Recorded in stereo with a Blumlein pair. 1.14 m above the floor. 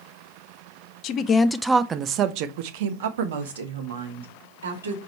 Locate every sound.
1.0 s a woman speaking: 40° left, 0.6 m; by 5.0 s 65° right, 2.5 m